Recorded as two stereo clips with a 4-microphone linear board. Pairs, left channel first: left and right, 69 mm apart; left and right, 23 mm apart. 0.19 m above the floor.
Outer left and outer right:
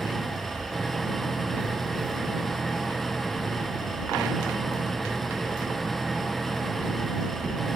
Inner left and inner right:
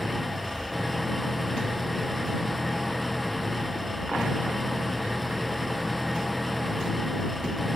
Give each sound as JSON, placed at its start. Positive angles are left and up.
{"t": 0.0, "sound": "an engine running", "side_deg": 0}